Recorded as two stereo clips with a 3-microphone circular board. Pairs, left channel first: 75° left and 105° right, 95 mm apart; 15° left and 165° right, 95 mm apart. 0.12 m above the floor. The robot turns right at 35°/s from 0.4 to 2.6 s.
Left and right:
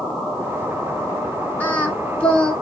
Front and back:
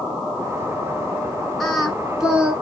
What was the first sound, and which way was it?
Singing, 95° left.